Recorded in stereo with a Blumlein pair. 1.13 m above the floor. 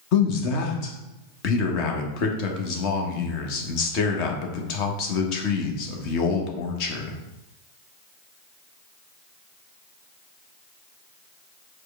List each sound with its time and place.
0.1 s a man speaking: 40° left, 1.0 m